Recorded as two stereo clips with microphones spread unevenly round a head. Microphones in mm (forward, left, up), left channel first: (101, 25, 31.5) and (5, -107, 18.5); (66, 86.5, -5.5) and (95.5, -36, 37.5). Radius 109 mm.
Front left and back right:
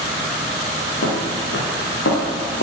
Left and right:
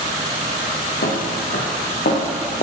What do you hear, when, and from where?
1.0 s footsteps: 95° left, 4.5 m; by 2.6 s 80° left, 5.5 m